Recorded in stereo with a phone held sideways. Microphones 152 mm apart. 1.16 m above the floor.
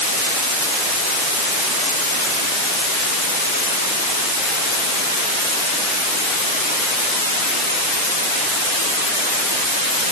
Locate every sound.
Only background noise.